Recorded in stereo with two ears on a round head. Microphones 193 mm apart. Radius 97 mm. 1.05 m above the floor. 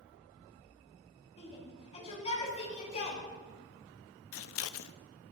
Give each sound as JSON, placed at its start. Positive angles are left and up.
{"t": 1.4, "sound": "a shout", "side_deg": 30, "distance_m": 6.5}
{"t": 4.3, "sound": "scissors", "side_deg": 70, "distance_m": 0.6}